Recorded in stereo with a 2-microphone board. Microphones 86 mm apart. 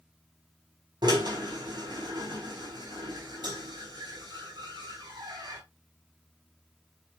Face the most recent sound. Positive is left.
turn(degrees=-55)  # may be behind; listen again after turning